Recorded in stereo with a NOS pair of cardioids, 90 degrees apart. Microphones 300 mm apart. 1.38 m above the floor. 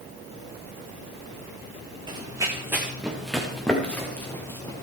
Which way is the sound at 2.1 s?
15° right.